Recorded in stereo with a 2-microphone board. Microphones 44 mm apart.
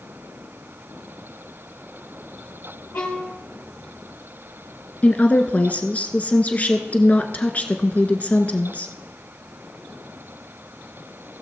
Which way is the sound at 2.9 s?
55° left (ahead or behind).